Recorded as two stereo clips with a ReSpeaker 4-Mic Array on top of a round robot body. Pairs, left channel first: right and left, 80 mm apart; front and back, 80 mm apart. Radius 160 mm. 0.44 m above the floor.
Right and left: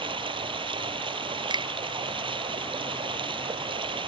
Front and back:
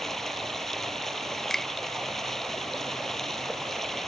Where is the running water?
85° left.